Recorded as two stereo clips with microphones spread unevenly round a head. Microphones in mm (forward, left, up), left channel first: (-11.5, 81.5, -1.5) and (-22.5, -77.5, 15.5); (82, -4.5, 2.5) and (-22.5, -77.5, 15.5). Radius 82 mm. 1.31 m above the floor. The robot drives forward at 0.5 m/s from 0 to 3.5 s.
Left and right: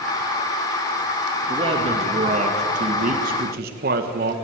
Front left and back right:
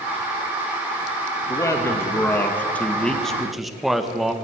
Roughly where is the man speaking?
Ahead right.